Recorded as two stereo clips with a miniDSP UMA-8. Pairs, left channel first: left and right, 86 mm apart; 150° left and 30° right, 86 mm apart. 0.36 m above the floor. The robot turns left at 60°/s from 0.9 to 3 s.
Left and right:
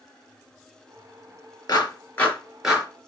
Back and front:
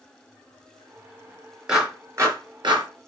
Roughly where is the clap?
Ahead left.